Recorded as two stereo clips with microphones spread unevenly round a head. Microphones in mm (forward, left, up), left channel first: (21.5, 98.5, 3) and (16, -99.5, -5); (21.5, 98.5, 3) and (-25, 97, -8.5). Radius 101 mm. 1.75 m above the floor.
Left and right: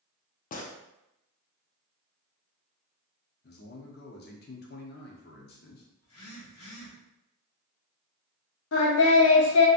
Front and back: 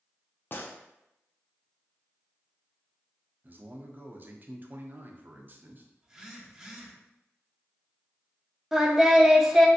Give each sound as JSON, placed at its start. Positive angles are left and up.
{"t": 0.5, "sound": "a gunshot", "azimuth_deg": 40, "distance_m": 0.5}
{"t": 3.4, "sound": "a man speaking", "azimuth_deg": 130, "distance_m": 0.7}
{"t": 6.0, "sound": "a phone buzzing", "azimuth_deg": 105, "distance_m": 1.0}
{"t": 8.7, "sound": "singing", "azimuth_deg": 95, "distance_m": 0.7}